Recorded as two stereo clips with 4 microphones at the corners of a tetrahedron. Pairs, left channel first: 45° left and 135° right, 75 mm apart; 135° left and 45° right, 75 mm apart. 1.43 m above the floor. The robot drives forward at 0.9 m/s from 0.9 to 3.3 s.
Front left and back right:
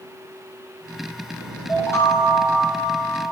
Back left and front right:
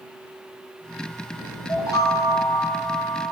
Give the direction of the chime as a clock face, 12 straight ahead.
9 o'clock.